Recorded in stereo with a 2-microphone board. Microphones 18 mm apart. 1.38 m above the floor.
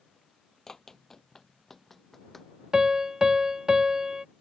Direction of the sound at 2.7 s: 35° right (ahead or behind).